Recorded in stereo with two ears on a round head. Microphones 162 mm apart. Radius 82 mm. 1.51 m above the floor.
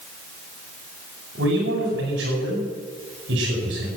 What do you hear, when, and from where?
1.4 s a man speaking: 65° right (ahead or behind), 9 m